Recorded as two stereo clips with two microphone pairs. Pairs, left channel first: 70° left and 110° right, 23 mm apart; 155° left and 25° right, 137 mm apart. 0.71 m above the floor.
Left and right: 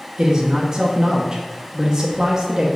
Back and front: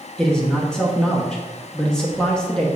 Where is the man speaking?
125° right, 0.9 m.